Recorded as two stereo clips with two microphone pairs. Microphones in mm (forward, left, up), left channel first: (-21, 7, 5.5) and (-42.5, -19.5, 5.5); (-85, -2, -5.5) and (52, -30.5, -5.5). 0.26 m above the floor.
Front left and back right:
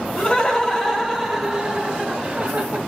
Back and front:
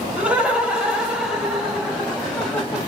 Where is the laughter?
60° left, 1.3 m; by 2.8 s 110° right, 1.5 m.